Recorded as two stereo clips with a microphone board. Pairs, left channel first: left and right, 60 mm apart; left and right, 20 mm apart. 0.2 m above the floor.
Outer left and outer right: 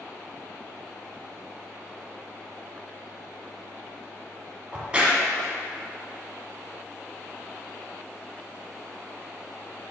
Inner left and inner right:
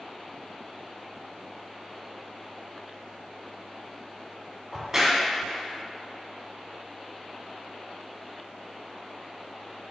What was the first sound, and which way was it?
A crack, 20° right (ahead or behind).